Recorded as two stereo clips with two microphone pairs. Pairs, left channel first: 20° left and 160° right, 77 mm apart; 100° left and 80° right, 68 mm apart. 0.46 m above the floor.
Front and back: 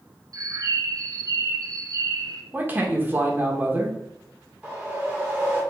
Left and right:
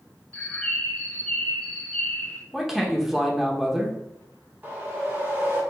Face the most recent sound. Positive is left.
turn(degrees=-110)